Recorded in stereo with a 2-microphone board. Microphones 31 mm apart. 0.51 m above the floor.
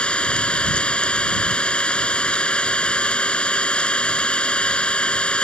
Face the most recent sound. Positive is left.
turn(degrees=35)  # may be behind; listen again after turning